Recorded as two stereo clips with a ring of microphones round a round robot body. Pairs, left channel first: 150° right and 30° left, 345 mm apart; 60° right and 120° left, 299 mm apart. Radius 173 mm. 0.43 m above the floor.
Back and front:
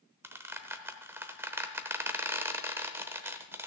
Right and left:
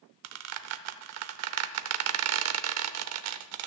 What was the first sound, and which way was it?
A squeak, 110° left.